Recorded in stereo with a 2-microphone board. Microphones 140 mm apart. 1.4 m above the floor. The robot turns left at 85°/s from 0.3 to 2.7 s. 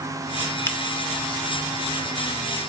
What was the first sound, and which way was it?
A finger snap, 20° left (ahead or behind).